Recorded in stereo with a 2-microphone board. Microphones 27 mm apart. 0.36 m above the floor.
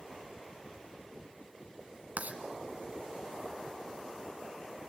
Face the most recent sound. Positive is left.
turn(degrees=-70)  # may be behind; listen again after turning